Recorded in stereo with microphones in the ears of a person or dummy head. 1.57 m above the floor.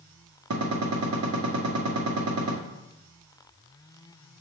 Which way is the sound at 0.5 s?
80° right.